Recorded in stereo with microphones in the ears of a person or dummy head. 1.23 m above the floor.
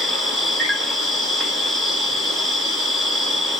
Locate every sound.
0.0 s an insect: centre (ahead or behind), 0.8 m